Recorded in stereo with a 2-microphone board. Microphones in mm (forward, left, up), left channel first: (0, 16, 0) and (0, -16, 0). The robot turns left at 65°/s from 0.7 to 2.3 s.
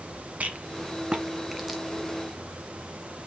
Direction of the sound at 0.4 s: 50° right (ahead or behind).